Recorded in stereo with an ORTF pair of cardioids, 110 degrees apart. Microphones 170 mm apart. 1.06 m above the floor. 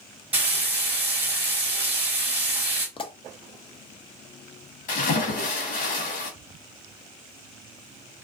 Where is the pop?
30° left, 0.6 m.